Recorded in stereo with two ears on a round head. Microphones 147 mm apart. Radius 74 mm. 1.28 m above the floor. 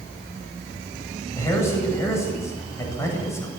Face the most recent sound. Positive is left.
turn(degrees=15)  # may be behind; listen again after turning